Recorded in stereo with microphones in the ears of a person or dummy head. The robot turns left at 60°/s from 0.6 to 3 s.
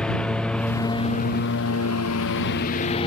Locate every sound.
0.0 s a lawn mower: 175° left; by 3.1 s 30° left